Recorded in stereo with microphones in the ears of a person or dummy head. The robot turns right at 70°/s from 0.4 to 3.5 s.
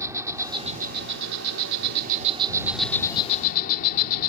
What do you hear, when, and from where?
0.0 s an insect: 165° right; by 4.3 s 50° left